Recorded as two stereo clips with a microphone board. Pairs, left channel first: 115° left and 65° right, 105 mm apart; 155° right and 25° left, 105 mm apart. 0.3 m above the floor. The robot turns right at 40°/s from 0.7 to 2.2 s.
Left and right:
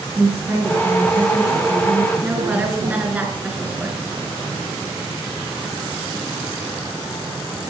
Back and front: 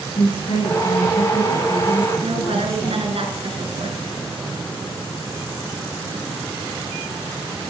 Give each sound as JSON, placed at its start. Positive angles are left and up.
{"t": 0.1, "sound": "a woman speaking", "azimuth_deg": -140, "distance_m": 5.5}
{"t": 2.2, "sound": "a woman speaking", "azimuth_deg": 5, "distance_m": 3.0}